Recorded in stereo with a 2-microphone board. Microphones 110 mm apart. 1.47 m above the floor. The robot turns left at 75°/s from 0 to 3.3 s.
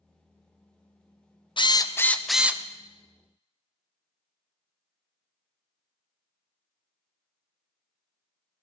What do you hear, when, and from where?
1.6 s a drill: 55° left, 0.7 m; by 2.6 s 25° right, 0.7 m